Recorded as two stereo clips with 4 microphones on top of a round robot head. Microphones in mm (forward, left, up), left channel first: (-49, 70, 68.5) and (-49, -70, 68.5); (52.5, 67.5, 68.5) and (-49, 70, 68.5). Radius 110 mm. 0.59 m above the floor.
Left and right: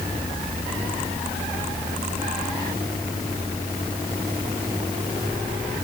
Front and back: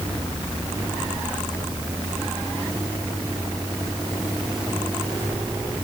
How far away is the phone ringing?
I don't hear a phone ringing.